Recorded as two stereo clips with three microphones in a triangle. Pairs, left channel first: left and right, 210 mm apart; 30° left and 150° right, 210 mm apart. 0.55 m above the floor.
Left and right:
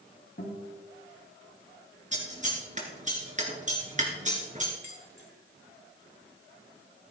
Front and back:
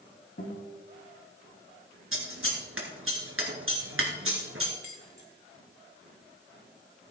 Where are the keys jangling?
60° left, 2.5 m.